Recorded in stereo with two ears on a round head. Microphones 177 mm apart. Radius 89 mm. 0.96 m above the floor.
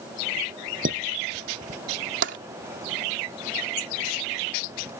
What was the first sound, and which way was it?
Dishes clattering, 45° right (ahead or behind).